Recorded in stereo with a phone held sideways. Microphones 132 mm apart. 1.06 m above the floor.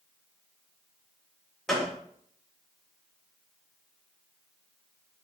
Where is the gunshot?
5° left (ahead or behind), 1.2 m.